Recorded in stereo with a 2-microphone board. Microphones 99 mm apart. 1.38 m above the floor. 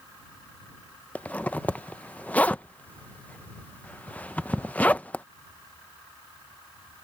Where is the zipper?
15° left (ahead or behind).